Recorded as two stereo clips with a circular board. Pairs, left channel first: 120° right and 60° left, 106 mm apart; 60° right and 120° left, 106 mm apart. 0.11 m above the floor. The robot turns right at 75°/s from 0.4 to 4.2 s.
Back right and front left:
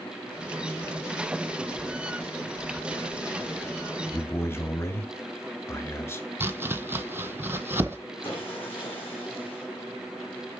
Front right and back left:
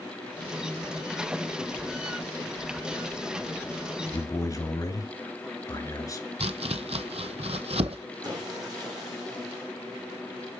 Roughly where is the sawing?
Behind.